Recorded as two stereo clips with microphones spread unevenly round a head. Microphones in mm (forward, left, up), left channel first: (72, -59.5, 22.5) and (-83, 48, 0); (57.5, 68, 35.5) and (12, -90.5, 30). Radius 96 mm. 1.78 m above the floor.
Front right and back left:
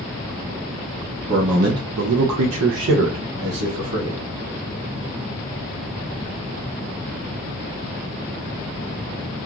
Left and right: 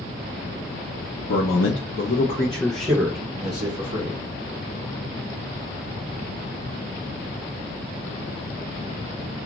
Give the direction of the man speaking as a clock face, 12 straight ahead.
9 o'clock.